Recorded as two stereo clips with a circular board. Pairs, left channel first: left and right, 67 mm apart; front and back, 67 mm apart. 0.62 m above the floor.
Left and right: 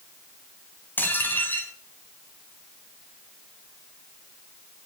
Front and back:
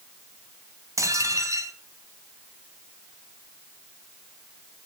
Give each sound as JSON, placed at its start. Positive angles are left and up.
{"t": 1.0, "sound": "dishes clattering", "azimuth_deg": 150, "distance_m": 3.0}